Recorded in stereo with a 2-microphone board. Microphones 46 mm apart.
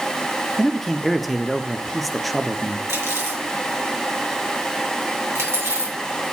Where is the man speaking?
Centre (ahead or behind), 0.7 m.